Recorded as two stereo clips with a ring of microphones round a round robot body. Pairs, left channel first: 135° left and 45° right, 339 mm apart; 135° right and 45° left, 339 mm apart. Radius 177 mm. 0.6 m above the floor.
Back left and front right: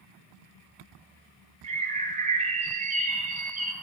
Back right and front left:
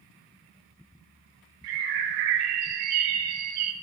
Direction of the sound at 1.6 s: 25° left.